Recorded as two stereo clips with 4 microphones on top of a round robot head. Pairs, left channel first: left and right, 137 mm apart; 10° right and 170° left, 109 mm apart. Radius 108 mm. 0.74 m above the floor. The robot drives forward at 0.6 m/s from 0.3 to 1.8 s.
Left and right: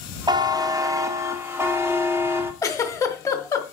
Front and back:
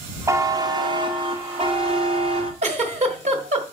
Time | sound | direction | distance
0.3 | a buzzer | 135° right | 1.0 m
2.6 | a giggle | 160° left | 1.5 m